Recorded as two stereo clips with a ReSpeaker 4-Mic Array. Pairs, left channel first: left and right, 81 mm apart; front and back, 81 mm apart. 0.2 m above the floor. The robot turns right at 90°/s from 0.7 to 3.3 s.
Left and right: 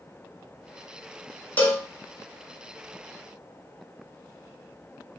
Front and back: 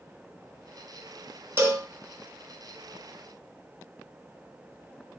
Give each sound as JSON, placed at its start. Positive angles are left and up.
{"t": 1.6, "sound": "a cowbell", "azimuth_deg": 145, "distance_m": 0.9}